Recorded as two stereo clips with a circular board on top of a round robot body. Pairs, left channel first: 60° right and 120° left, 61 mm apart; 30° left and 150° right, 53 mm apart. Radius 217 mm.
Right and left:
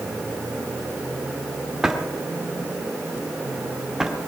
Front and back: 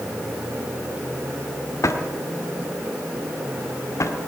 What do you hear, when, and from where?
1.8 s a drawer: 40° left, 1.3 m